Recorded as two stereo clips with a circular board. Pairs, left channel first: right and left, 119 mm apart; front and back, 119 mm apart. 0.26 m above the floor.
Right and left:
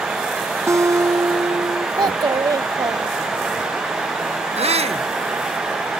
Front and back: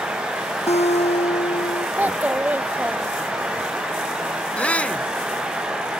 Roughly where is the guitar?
Ahead left.